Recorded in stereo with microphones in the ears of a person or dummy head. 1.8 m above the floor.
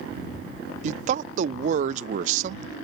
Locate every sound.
0.8 s a man speaking: 45° right (ahead or behind)